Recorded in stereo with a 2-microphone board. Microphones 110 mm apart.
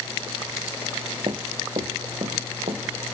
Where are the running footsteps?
45° right (ahead or behind), 0.7 m; by 2.8 s 75° right (ahead or behind), 1.8 m.